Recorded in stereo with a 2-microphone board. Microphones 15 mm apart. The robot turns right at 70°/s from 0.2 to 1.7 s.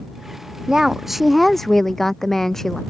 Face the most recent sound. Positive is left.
turn(degrees=25)